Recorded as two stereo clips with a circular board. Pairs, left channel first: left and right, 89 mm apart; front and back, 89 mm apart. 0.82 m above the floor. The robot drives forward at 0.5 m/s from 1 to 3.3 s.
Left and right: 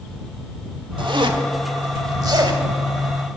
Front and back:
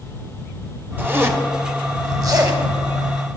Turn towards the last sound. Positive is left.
turn(degrees=-145)